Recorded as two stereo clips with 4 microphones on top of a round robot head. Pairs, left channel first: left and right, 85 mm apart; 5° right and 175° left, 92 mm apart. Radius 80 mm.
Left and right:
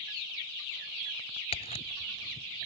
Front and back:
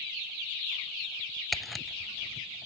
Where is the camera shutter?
85° left.